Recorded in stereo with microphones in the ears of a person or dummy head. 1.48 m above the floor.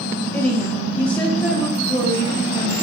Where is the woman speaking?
5° left (ahead or behind), 1.4 m.